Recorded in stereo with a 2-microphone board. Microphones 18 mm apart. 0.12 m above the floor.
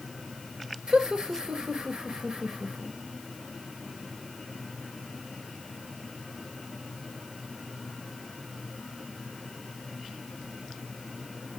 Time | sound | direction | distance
0.9 | laughter | 50° right (ahead or behind) | 2 m